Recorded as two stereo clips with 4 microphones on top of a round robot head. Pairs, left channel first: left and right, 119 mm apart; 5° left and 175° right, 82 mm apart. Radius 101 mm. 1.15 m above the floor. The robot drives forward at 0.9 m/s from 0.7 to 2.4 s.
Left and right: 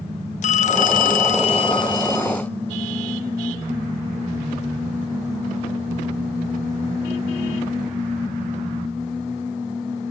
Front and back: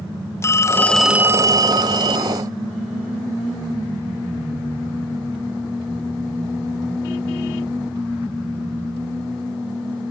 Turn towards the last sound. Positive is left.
turn(degrees=160)